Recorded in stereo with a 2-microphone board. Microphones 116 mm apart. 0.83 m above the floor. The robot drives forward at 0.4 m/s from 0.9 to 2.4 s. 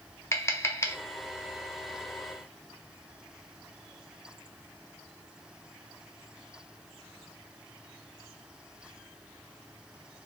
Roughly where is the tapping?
Left.